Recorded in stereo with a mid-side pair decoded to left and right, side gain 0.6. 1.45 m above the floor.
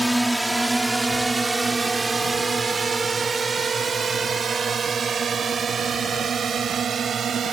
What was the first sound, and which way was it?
A drone, 5° right.